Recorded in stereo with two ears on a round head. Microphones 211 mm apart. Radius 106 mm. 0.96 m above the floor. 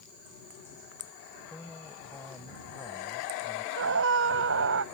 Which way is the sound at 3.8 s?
55° right (ahead or behind).